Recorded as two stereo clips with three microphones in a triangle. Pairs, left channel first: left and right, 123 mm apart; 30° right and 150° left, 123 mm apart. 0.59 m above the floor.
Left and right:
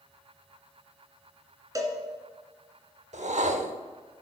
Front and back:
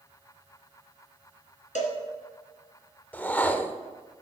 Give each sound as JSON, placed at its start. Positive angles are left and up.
{"t": 1.8, "sound": "a cowbell", "azimuth_deg": -30, "distance_m": 1.5}
{"t": 3.1, "sound": "a whoosh", "azimuth_deg": -110, "distance_m": 0.6}